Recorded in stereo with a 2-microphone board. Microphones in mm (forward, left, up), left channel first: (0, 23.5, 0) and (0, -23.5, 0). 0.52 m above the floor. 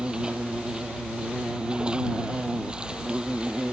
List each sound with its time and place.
0.0 s an insect: 15° right (ahead or behind)